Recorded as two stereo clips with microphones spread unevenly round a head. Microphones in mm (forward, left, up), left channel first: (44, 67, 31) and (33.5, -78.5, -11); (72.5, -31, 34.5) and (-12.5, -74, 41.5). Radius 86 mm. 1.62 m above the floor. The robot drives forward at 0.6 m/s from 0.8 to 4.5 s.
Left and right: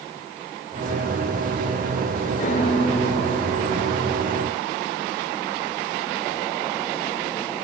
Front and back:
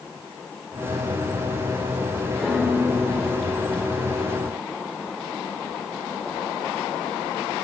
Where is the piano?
120° left, 2.5 m; by 4.7 s 140° left, 3.5 m.